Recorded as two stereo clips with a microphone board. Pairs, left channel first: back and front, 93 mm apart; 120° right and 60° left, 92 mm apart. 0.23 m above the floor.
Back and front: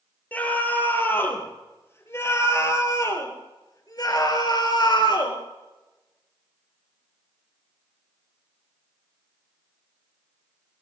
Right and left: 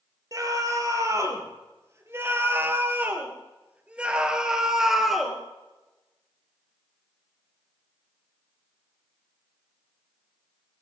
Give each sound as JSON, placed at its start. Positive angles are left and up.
{"t": 0.3, "sound": "a scream", "azimuth_deg": 110, "distance_m": 5.0}